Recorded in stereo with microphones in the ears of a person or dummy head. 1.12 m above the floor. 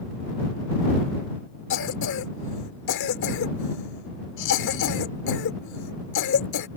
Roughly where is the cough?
Left.